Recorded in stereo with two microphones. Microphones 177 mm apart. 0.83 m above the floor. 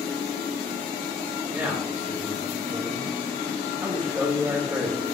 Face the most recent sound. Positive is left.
turn(degrees=-15)  # may be behind; listen again after turning